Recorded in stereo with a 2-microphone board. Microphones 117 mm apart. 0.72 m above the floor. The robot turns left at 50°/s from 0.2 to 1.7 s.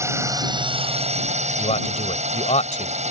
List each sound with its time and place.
0.0 s a drone: 25° right; by 3.1 s 100° right
1.6 s a man speaking: 75° left (ahead or behind); by 3.1 s 70° left (ahead or behind)